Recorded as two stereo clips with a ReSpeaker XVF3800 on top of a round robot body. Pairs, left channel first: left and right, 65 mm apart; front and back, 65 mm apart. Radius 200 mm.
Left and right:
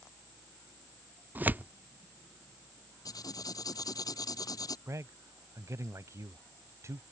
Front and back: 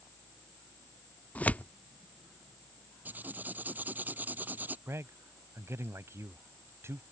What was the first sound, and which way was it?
Tearing paper, 50° right.